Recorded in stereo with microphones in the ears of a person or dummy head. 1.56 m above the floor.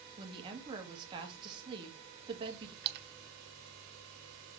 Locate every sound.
0.2 s a woman speaking: 25° right (ahead or behind), 2 m
2.8 s a splash: 55° right (ahead or behind), 0.8 m